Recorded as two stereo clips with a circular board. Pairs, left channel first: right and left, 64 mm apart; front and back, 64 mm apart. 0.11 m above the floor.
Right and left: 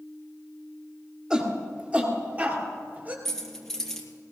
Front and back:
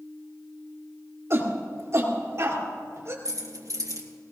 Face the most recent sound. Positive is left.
turn(degrees=-175)